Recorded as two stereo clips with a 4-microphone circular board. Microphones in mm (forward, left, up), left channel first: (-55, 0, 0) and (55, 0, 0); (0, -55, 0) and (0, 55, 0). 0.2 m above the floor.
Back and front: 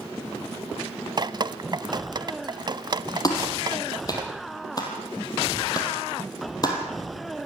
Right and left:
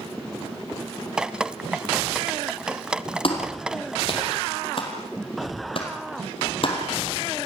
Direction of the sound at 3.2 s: 125° right.